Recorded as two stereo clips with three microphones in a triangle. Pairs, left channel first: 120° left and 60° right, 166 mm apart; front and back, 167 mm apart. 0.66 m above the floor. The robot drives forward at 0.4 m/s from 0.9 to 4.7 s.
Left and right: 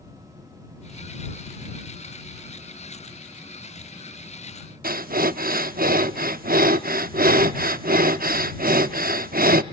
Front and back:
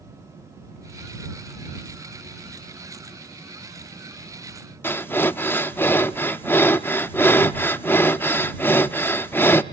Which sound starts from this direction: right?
Breathing, at 4.8 s.